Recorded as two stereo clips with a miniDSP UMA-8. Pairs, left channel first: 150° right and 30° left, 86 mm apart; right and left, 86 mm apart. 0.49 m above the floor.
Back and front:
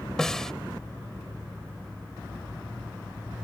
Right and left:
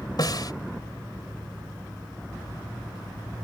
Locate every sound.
0.2 s a snare drum: 65° right